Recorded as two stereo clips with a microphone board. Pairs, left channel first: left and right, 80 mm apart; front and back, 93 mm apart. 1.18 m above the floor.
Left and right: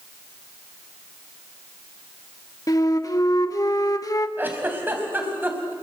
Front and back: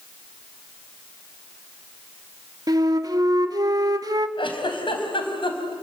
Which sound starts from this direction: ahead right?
A giggle, at 4.4 s.